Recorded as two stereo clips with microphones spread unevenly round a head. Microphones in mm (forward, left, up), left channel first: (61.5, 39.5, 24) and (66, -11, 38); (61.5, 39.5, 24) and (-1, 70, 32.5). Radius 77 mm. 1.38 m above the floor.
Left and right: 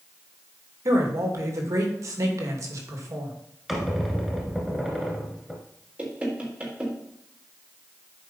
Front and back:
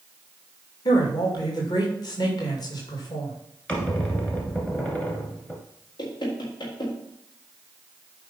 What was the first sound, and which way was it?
A man speaking, 65° right.